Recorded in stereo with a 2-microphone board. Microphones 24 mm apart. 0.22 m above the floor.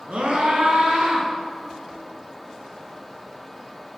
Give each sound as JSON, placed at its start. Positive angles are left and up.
{"t": 0.1, "sound": "a scream", "side_deg": -60, "distance_m": 2.0}